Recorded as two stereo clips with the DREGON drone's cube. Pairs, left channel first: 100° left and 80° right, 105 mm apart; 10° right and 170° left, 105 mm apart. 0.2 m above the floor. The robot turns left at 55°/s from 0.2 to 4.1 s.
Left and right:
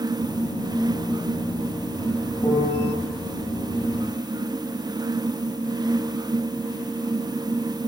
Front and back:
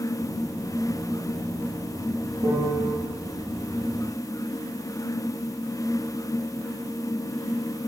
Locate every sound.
2.4 s a piano: 160° left, 7 m; by 2.9 s 130° left, 7 m